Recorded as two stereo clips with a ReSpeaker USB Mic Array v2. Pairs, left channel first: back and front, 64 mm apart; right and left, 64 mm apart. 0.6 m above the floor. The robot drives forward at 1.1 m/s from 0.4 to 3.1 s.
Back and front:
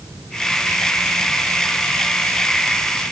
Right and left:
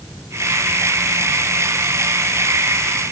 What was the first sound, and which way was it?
Only background noise.